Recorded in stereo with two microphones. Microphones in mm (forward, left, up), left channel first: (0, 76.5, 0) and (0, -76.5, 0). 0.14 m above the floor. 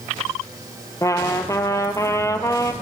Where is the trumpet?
20° left (ahead or behind), 0.6 m.